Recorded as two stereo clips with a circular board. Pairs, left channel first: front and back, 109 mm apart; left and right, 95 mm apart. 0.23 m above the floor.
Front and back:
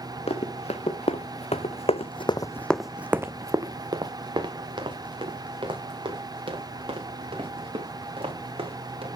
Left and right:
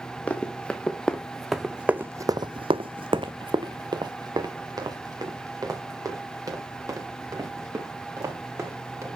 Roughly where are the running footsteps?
Ahead.